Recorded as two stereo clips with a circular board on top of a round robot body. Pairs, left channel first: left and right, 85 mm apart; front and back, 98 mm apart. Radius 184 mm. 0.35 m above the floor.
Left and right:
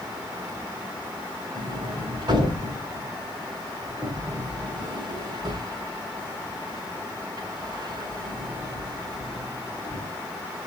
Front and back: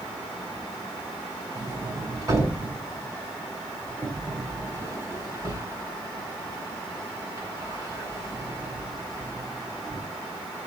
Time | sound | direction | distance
1.6 | a sliding door | 125° right | 6.5 m